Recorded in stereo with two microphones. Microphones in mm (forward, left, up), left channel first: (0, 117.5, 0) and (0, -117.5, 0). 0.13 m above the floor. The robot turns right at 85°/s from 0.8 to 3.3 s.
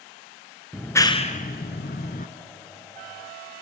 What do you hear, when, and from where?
0.7 s a clap: centre (ahead or behind), 1.1 m; by 2.3 s 35° left (ahead or behind), 1.1 m